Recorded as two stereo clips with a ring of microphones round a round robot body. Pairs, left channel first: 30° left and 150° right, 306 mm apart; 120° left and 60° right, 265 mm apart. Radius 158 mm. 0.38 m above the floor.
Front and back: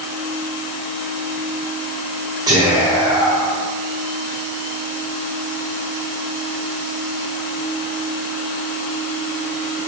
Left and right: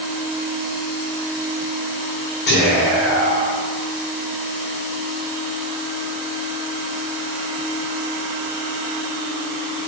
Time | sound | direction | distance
2.5 | whispering | 140° left | 1.2 m